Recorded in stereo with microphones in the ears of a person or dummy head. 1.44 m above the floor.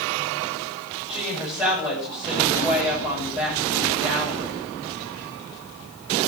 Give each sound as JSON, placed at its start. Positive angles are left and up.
{"t": 1.1, "sound": "a woman speaking", "side_deg": -10, "distance_m": 10.0}